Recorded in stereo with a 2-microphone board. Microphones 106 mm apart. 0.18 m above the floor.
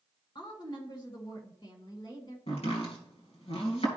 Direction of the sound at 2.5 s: 65° left (ahead or behind).